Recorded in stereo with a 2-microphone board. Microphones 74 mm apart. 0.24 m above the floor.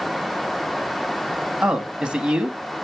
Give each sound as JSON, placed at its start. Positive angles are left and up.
{"t": 1.6, "sound": "a man speaking", "side_deg": -10, "distance_m": 1.9}